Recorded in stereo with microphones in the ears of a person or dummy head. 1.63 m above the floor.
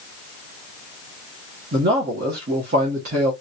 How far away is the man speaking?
About 1.1 m.